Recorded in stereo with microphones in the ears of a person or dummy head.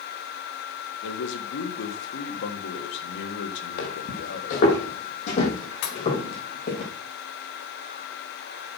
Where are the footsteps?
55° left (ahead or behind), 3.5 m; by 6.8 s 45° left (ahead or behind), 7 m.